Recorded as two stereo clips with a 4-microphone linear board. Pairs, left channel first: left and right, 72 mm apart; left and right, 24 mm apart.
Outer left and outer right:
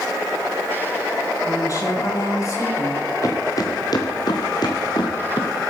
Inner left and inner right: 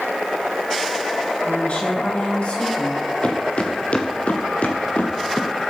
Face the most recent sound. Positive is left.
turn(degrees=80)